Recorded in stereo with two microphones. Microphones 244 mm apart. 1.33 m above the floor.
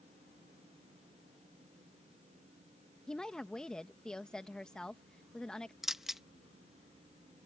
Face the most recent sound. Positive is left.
turn(degrees=0)  # may be behind; listen again after turning